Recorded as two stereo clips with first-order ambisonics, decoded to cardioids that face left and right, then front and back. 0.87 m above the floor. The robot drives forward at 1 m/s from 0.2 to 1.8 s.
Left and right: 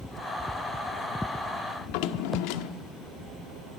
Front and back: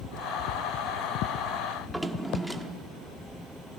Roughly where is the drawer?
Left.